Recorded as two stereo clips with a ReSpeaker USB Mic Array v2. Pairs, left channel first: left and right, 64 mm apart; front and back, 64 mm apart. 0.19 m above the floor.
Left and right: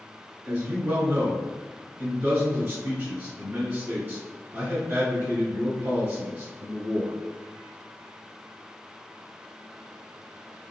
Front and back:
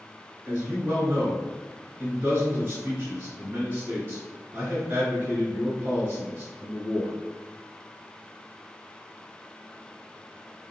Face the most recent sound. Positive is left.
turn(degrees=-140)